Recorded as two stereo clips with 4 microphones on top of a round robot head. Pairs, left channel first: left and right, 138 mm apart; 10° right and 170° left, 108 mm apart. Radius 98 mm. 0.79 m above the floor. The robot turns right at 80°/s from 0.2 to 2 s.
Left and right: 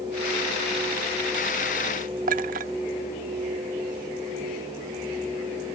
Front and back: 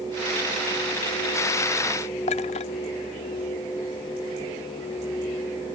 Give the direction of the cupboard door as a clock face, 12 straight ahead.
I don't hear a cupboard door.